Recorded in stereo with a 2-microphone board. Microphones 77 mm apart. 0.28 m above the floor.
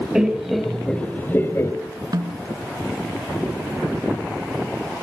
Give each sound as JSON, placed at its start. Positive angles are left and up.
{"t": 0.1, "sound": "laughter", "side_deg": -10, "distance_m": 1.9}
{"t": 2.1, "sound": "a snare drum", "side_deg": -60, "distance_m": 2.5}